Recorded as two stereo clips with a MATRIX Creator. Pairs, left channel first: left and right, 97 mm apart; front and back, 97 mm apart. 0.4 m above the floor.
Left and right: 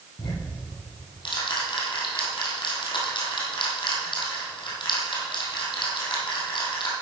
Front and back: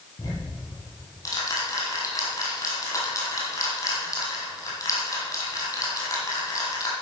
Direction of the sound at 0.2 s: 55° left.